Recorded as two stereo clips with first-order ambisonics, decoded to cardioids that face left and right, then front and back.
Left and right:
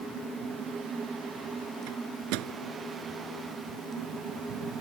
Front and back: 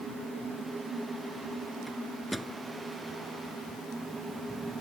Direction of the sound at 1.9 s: 90° right.